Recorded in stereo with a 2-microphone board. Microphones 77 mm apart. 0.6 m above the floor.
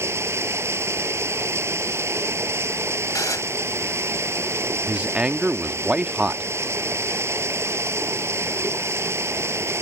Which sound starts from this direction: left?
Dishes clattering, at 3.1 s.